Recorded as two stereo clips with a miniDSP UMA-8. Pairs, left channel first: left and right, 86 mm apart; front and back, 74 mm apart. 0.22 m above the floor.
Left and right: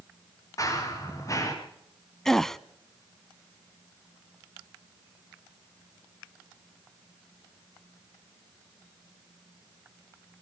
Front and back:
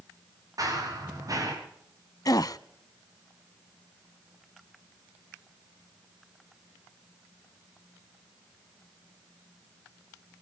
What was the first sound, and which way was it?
Running footsteps, 140° left.